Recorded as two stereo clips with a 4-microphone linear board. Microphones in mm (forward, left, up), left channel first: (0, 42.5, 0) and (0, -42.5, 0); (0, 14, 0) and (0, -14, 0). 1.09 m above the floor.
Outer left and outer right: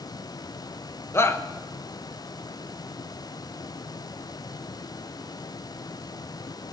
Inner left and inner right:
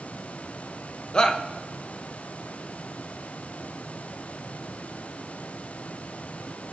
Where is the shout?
30° left (ahead or behind), 1.2 m.